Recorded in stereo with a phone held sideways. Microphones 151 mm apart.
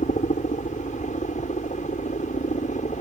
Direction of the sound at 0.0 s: 55° left (ahead or behind).